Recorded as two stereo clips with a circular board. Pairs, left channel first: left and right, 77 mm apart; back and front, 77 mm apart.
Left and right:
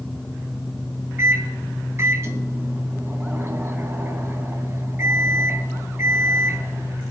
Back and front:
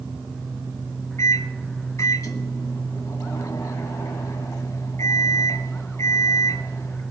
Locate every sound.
1.2 s a microwave: 140° right, 1.7 m